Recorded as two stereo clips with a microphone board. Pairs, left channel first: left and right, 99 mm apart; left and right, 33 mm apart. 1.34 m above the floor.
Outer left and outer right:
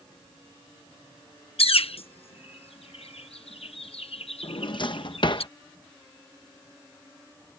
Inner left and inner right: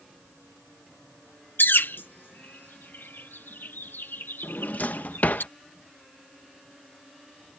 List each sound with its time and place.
1.6 s a bird: 80° left
4.4 s a drawer: 55° left (ahead or behind)